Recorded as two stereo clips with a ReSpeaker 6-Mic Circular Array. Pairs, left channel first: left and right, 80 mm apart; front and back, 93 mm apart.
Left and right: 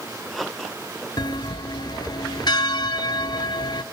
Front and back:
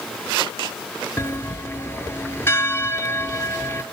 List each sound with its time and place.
1.2 s a bell: 65° left, 0.7 m